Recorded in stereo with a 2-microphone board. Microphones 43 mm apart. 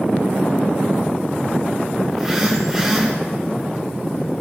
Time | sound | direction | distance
2.1 | a phone buzzing | 15° right (ahead or behind) | 6 m